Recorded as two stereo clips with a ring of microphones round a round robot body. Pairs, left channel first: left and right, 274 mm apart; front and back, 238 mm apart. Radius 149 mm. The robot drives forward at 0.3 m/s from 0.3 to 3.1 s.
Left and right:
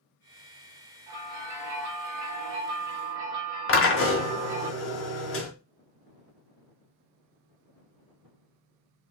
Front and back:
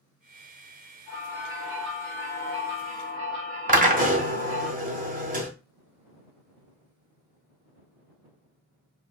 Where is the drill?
125° left, 1.3 m.